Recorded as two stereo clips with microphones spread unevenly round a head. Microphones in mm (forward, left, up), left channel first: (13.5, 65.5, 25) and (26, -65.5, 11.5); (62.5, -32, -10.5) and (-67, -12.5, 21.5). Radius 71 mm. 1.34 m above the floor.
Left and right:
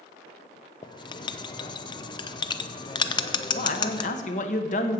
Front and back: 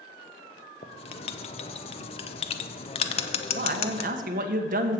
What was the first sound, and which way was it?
Writing, 35° left.